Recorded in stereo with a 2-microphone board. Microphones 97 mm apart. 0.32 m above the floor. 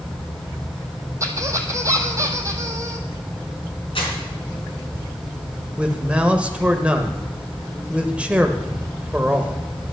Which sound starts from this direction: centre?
A man speaking, at 5.8 s.